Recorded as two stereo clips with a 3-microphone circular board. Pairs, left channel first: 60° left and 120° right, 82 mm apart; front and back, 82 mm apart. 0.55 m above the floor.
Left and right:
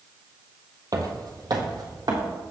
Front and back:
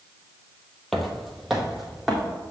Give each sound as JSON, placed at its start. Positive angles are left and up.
{"t": 0.9, "sound": "footsteps", "azimuth_deg": -85, "distance_m": 1.0}